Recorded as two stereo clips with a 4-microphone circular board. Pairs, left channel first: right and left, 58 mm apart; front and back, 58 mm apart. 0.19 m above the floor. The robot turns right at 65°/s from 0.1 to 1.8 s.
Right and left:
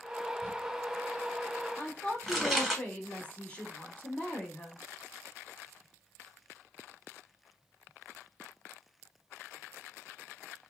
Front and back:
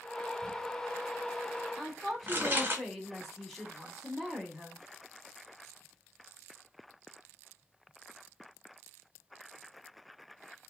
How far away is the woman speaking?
About 1.0 m.